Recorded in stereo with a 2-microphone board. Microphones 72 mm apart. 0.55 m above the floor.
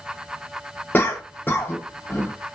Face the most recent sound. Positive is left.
turn(degrees=30)  # may be behind; listen again after turning